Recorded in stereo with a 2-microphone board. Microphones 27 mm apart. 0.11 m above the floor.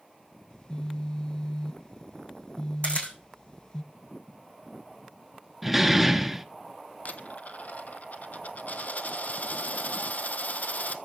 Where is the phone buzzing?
30° left (ahead or behind), 0.6 m.